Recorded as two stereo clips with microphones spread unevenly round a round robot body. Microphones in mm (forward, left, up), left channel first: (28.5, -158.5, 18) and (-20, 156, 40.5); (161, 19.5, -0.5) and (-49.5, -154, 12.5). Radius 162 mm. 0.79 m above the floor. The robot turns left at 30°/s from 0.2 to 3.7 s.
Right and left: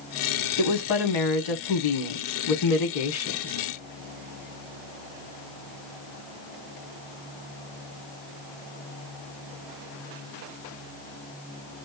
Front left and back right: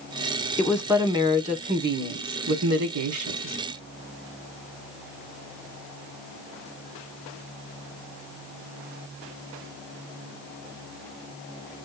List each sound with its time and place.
0.6 s a woman speaking: 45° right, 1.9 m; by 3.5 s 135° right, 1.9 m